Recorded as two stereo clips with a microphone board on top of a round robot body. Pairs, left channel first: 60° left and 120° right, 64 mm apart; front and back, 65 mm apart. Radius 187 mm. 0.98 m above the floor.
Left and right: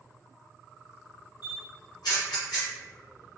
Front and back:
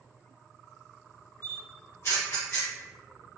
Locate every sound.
1.4 s a camera shutter: 45° left, 1.4 m